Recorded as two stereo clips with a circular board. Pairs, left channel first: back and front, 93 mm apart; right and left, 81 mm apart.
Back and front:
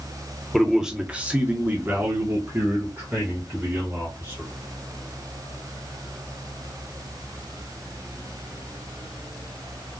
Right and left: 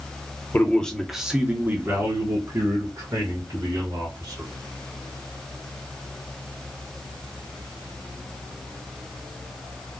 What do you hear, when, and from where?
0.5 s a man speaking: 85° right, 0.8 m; by 4.5 s 65° left, 2.5 m